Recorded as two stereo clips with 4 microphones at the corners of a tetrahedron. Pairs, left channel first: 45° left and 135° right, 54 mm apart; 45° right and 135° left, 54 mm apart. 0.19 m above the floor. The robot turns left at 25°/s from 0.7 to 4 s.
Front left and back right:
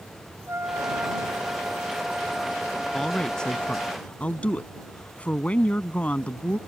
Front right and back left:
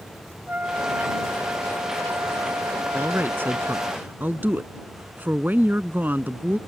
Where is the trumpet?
170° right; by 3.9 s 110° left.